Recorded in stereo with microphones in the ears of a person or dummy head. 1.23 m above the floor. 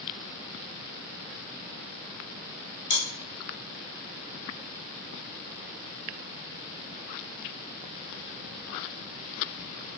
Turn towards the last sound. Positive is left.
turn(degrees=45)  # may be behind; listen again after turning